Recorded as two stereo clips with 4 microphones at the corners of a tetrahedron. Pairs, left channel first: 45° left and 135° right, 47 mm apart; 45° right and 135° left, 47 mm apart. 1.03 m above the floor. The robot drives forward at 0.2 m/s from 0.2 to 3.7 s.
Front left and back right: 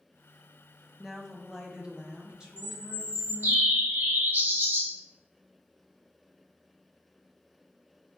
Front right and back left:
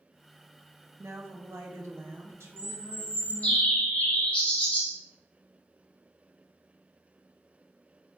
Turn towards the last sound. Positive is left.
turn(degrees=-105)